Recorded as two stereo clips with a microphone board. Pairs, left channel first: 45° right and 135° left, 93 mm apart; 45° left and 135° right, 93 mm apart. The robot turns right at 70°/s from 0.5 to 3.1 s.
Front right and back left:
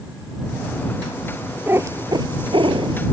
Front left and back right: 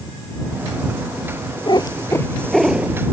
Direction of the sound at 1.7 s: 70° left.